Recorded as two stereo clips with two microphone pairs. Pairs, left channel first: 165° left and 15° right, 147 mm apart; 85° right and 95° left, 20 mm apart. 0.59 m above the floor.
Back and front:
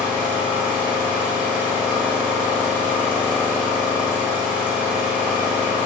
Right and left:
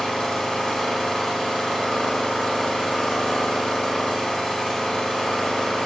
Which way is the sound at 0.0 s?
95° right.